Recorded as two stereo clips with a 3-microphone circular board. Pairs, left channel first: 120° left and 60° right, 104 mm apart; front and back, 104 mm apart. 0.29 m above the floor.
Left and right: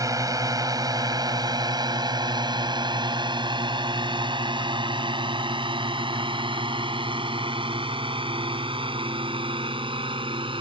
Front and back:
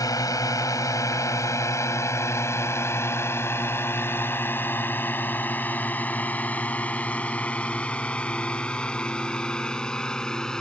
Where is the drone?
30° right; by 10.6 s 85° right.